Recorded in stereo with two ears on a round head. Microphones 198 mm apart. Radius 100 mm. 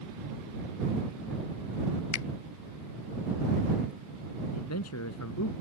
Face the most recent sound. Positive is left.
turn(degrees=80)